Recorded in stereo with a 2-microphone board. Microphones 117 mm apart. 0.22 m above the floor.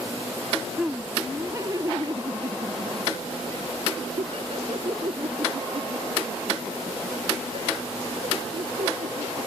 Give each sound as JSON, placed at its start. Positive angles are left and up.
{"t": 0.8, "sound": "laughter", "side_deg": -10}